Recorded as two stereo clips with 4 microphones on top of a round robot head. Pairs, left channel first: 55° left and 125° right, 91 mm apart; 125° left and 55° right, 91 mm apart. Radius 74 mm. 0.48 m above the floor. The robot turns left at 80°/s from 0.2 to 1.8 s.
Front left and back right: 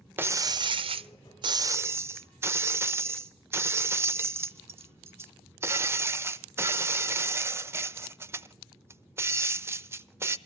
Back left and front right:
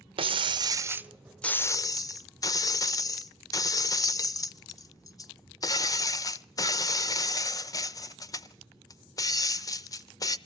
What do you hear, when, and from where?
0.2 s breaking glass: 60° right, 0.9 m; by 10.4 s 175° left, 0.9 m